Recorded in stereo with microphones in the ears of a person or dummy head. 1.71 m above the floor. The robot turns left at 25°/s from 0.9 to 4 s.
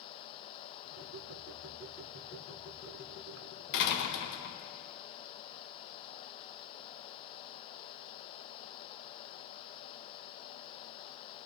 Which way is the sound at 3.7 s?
65° left (ahead or behind).